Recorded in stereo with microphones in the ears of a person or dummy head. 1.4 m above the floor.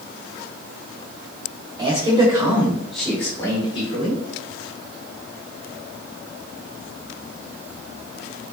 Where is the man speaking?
25° right (ahead or behind), 1.4 m; by 4.2 s 40° left (ahead or behind), 1.2 m.